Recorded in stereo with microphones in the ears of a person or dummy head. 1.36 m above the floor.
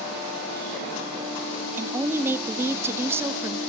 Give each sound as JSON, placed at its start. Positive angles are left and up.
{"t": 1.8, "sound": "a woman speaking", "side_deg": -15, "distance_m": 0.6}